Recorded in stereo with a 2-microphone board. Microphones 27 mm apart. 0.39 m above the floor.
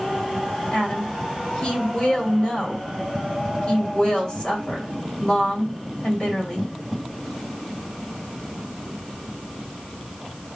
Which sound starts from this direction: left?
A woman speaking, at 0.7 s.